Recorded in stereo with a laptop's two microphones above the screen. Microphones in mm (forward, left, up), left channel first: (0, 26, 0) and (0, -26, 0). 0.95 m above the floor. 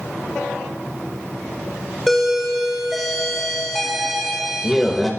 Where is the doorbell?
Centre (ahead or behind), 0.7 m.